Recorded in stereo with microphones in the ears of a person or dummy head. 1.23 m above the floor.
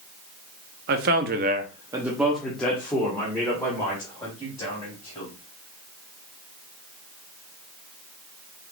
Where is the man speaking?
50° right (ahead or behind), 0.8 m; by 5.3 s 20° left (ahead or behind), 3.5 m.